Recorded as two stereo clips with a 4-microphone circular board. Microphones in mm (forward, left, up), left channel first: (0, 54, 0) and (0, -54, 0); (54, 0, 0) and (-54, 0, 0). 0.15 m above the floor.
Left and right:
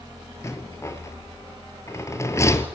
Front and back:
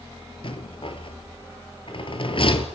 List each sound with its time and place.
0.4 s a rattle: 30° left, 2 m